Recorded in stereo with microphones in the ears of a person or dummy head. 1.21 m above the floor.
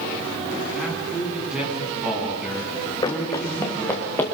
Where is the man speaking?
Centre (ahead or behind), 9 m.